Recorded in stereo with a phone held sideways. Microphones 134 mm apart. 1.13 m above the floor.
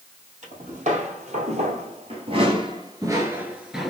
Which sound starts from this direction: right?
Footsteps, at 0.4 s.